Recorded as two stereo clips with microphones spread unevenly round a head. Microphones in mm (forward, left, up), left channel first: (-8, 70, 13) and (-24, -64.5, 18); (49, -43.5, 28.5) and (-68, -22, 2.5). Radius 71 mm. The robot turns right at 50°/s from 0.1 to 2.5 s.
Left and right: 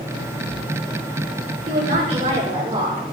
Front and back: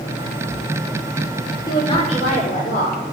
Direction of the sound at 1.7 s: 70° right.